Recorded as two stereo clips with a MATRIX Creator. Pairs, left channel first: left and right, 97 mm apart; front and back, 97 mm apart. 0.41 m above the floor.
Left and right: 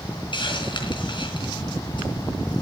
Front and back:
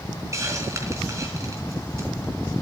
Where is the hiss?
120° left, 4 m.